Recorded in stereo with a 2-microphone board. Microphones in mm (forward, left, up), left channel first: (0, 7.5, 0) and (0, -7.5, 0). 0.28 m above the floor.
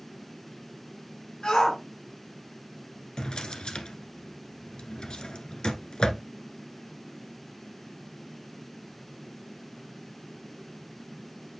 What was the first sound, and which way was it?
A shout, 60° left (ahead or behind).